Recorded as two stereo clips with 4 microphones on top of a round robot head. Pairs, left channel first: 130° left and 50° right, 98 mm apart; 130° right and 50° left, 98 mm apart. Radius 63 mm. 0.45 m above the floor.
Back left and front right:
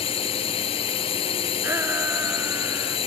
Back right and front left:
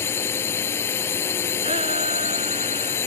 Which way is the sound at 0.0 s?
160° left.